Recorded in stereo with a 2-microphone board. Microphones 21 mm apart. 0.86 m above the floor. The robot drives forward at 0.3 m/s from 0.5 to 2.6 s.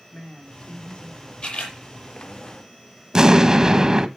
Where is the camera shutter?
70° left (ahead or behind), 6 m; by 1.8 s 75° left (ahead or behind), 6 m.